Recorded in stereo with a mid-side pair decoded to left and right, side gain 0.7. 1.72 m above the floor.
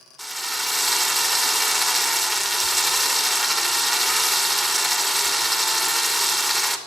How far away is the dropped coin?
I don't hear a dropped coin.